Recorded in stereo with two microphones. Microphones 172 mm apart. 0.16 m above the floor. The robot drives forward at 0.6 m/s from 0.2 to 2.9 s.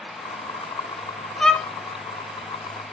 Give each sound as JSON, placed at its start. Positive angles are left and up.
{"t": 1.4, "sound": "a violin", "side_deg": 5, "distance_m": 1.2}